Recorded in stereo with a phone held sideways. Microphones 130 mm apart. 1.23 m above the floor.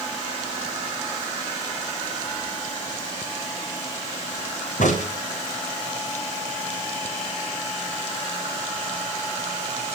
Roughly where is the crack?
Left.